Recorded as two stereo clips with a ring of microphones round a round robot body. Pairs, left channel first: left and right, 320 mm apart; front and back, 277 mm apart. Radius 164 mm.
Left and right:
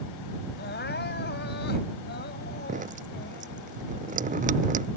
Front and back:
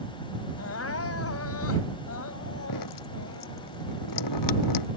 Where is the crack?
I don't hear a crack.